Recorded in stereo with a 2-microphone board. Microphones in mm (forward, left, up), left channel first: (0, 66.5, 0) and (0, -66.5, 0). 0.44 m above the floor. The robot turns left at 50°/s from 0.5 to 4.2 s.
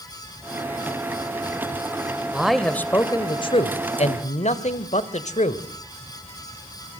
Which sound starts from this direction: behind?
A man speaking, at 2.3 s.